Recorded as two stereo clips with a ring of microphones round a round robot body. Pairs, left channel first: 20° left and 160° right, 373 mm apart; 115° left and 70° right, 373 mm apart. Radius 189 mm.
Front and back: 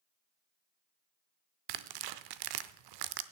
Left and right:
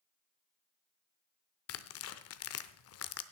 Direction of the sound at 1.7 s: 170° left.